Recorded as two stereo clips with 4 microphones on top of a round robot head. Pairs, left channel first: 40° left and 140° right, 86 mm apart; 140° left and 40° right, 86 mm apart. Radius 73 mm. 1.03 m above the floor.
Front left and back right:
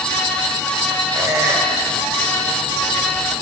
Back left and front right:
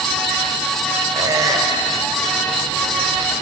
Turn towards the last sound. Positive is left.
turn(degrees=-90)